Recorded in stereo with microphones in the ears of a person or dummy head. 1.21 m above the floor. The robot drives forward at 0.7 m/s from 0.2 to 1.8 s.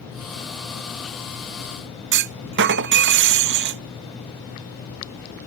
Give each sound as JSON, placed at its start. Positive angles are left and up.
{"t": 2.1, "sound": "a clunk", "side_deg": -55}